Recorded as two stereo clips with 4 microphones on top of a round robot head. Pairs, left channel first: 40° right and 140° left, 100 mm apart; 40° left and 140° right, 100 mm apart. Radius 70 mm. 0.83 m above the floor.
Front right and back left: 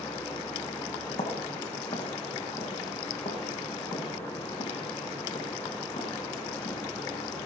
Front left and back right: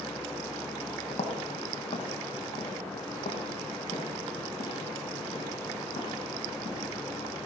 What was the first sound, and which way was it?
Footsteps, straight ahead.